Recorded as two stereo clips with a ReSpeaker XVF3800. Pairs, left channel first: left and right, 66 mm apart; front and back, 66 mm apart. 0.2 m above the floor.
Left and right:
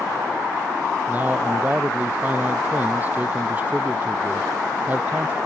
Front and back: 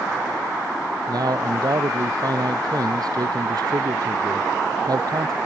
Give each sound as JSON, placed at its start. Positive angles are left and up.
{"t": 1.1, "sound": "a man speaking", "azimuth_deg": -155}